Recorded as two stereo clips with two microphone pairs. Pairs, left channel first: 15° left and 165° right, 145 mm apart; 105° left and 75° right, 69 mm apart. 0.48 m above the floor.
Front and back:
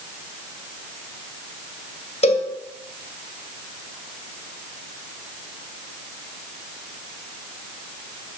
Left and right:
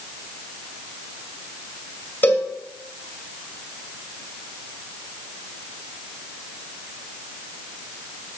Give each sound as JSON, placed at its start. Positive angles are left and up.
{"t": 2.2, "sound": "a cowbell", "azimuth_deg": 50, "distance_m": 2.0}